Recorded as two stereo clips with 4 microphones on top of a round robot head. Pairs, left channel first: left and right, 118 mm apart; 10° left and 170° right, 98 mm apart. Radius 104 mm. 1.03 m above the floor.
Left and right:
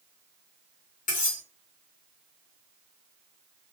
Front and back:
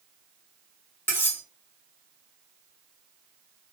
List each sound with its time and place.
1.1 s cutlery clinking: 80° left, 1.2 m